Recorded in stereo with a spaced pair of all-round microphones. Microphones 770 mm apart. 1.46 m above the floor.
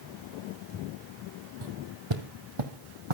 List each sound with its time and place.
1.6 s footsteps: 30° right (ahead or behind), 2 m; by 3.1 s 40° right (ahead or behind), 3 m